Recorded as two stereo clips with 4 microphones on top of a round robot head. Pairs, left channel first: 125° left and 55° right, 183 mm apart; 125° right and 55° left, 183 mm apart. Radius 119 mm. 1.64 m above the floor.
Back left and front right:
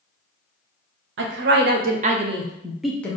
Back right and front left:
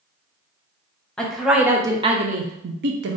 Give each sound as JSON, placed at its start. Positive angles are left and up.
{"t": 1.2, "sound": "a woman speaking", "azimuth_deg": -35, "distance_m": 0.8}